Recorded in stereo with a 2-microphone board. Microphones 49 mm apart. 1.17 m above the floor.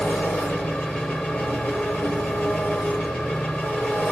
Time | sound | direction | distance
0.0 | an engine running | 25° left (ahead or behind) | 1.5 m